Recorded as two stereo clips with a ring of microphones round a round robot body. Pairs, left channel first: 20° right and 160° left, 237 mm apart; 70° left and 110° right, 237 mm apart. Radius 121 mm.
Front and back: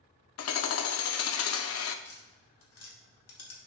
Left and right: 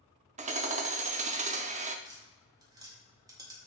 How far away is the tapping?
About 1.8 m.